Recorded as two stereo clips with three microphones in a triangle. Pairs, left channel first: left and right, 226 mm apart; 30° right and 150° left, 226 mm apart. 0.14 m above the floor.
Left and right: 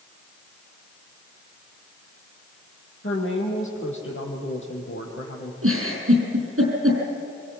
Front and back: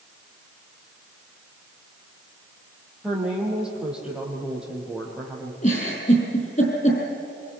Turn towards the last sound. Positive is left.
turn(degrees=-85)